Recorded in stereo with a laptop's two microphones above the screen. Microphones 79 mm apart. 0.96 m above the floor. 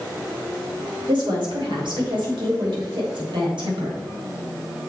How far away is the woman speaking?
About 2.5 m.